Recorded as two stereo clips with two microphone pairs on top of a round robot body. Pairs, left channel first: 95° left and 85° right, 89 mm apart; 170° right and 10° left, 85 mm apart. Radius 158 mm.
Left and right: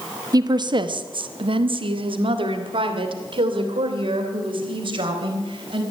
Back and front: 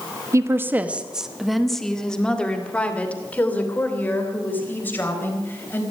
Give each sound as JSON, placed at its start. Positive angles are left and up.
{"t": 0.3, "sound": "a woman speaking", "azimuth_deg": -40, "distance_m": 0.9}